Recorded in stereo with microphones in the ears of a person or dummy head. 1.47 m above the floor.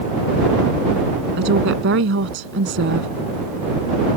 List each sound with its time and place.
1.4 s a woman speaking: 75° right (ahead or behind)